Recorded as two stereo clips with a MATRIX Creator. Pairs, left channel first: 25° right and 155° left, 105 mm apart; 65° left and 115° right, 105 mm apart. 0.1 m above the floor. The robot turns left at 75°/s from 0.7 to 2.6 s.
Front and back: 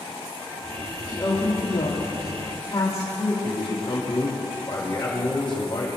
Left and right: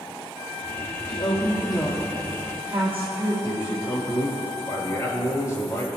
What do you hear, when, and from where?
1.1 s a woman speaking: 60° left, 3 m; by 3.3 s 55° right, 3 m
3.4 s a man speaking: 10° left, 4.5 m